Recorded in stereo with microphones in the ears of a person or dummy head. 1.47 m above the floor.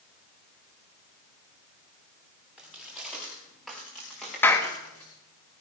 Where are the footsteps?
Centre (ahead or behind), 6.5 m; by 5.1 s 5° left (ahead or behind), 6 m.